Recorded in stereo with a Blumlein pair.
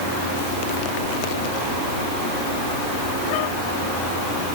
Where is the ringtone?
No ringtone in this recording.